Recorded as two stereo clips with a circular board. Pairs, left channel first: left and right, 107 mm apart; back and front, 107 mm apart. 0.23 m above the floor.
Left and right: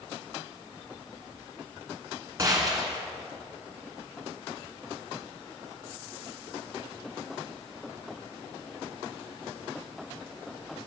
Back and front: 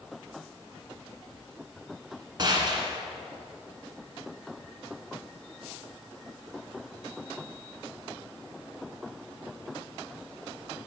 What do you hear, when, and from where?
2.4 s a gunshot: 40° right, 1.9 m